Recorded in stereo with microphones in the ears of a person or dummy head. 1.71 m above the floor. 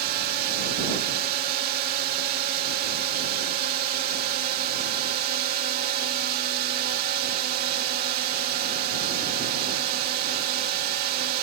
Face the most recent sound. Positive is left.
turn(degrees=-50)  # may be behind; listen again after turning